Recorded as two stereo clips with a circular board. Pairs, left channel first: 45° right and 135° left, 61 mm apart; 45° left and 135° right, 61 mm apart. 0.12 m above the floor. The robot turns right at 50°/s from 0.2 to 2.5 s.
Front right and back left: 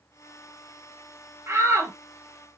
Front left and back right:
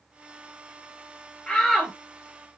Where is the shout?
115° left, 2.5 m; by 1.9 s 140° left, 2.5 m.